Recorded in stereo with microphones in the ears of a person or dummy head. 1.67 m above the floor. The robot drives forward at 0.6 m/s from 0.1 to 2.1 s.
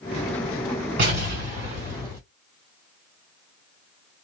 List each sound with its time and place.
1.0 s an explosion: 40° right (ahead or behind), 1.8 m; by 2.2 s 30° right (ahead or behind), 2 m